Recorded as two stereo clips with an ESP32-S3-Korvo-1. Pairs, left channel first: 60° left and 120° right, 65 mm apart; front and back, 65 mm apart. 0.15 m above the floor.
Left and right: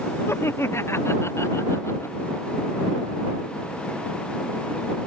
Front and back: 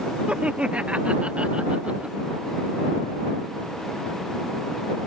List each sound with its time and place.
0.3 s laughter: 110° left